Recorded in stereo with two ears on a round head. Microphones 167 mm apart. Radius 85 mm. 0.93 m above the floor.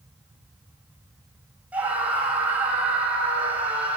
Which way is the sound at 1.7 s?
10° right (ahead or behind).